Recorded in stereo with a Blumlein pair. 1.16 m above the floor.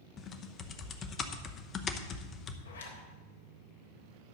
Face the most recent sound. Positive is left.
turn(degrees=70)